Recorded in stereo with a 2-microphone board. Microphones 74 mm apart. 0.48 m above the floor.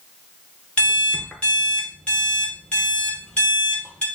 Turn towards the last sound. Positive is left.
turn(degrees=15)  # may be behind; listen again after turning